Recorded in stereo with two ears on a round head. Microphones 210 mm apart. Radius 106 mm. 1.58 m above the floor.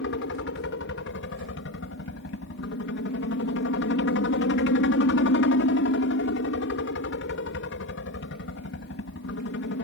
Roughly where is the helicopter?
Left.